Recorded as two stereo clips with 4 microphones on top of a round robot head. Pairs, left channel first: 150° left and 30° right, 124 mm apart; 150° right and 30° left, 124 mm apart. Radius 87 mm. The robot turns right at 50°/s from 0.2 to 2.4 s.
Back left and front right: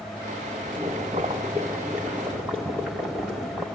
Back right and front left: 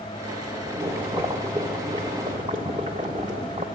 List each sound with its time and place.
0.7 s boiling: 35° right, 1.3 m; by 3.6 s 50° left, 1.3 m